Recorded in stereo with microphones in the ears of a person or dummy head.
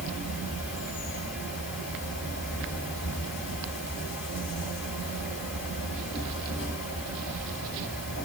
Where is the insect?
5° right (ahead or behind), 1.7 m.